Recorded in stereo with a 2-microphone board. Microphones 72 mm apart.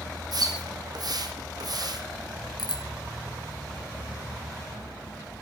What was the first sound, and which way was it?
A splash, 60° right (ahead or behind).